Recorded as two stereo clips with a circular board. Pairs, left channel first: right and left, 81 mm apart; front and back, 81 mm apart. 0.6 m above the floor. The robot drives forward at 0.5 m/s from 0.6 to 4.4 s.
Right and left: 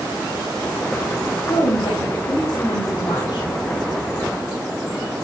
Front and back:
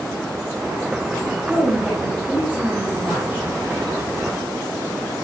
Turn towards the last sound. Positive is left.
turn(degrees=-120)